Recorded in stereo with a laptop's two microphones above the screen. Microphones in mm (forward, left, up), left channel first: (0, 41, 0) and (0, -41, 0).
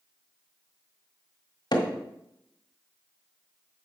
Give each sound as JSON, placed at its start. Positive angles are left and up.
{"t": 1.7, "sound": "hammering", "side_deg": 60, "distance_m": 1.7}